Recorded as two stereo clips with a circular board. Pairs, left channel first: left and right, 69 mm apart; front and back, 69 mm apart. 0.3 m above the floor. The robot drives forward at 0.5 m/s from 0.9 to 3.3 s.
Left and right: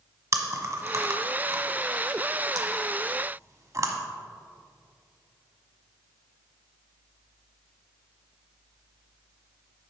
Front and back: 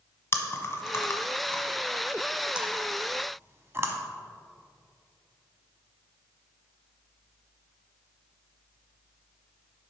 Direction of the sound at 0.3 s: 50° right.